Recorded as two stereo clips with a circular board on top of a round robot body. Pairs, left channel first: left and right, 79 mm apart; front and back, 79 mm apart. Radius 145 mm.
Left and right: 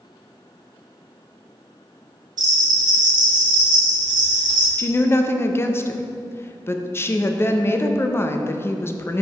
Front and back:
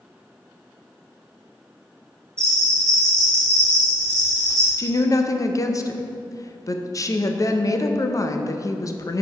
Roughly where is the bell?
Behind right.